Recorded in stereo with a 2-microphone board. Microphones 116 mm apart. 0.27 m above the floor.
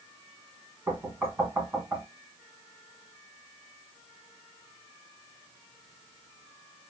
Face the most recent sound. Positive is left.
turn(degrees=-20)  # may be behind; listen again after turning